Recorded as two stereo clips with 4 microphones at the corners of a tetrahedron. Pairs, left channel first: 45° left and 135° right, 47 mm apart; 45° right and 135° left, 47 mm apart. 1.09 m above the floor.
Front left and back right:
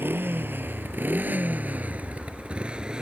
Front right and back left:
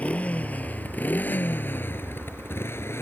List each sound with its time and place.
0.0 s a motorcycle: 105° right; by 3.0 s 65° right